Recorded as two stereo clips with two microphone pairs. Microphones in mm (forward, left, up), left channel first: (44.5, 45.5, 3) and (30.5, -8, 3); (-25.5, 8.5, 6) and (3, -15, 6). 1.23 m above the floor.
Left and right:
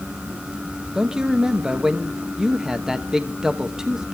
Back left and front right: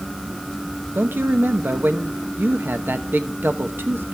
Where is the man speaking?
25° right, 1.0 m.